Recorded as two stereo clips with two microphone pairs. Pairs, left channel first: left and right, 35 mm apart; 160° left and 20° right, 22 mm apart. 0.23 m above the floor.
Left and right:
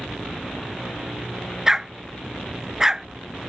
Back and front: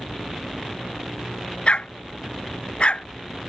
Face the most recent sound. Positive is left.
turn(degrees=-165)